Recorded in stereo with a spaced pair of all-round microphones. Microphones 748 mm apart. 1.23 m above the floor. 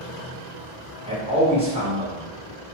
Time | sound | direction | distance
1.1 | a man speaking | 10° right (ahead or behind) | 1.4 m